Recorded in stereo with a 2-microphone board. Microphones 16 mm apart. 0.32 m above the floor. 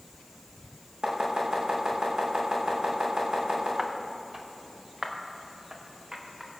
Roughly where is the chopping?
Right.